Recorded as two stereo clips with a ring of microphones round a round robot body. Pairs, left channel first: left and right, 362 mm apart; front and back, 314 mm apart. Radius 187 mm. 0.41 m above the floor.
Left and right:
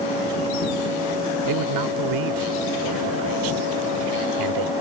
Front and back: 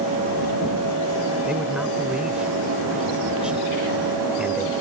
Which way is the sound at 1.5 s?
95° right.